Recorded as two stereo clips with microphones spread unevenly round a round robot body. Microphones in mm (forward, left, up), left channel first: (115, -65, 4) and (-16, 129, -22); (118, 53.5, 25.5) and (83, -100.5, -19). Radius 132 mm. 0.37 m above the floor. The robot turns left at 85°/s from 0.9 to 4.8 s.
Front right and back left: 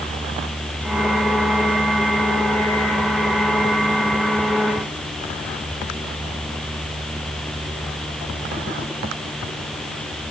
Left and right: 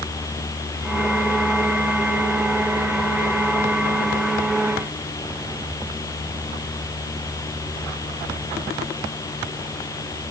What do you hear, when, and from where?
Only background noise.